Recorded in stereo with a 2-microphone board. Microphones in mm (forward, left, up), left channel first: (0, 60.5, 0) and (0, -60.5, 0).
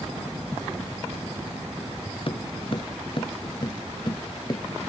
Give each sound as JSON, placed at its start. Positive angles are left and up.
{"t": 2.3, "sound": "footsteps", "side_deg": 50}